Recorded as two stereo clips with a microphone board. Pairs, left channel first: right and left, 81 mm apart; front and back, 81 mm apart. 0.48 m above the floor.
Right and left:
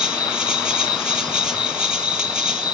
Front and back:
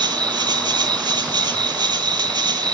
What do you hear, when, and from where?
0.0 s an insect: 170° left, 1.2 m